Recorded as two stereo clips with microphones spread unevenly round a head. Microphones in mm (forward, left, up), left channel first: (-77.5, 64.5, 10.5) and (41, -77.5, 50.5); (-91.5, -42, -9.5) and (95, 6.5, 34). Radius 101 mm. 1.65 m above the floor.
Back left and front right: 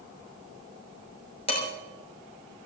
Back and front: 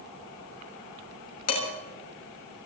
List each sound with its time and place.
1.5 s dishes clattering: 170° right, 5.5 m